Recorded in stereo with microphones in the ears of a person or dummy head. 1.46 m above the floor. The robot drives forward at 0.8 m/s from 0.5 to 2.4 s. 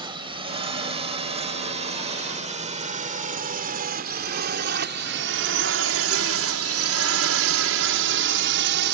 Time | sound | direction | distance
0.0 | a drone | 25° right (ahead or behind) | ?